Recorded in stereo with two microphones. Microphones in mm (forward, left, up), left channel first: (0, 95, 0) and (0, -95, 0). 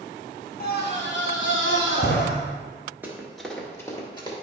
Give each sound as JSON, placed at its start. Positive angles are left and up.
{"t": 0.6, "sound": "a scream", "side_deg": 50, "distance_m": 1.2}
{"t": 3.0, "sound": "running footsteps", "side_deg": -10, "distance_m": 1.7}